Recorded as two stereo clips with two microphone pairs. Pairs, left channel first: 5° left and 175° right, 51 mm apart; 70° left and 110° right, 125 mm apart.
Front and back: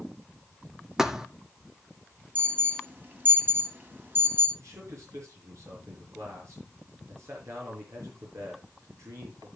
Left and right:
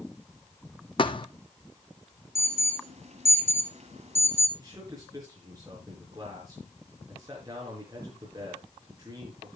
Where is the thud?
110° left, 0.7 m.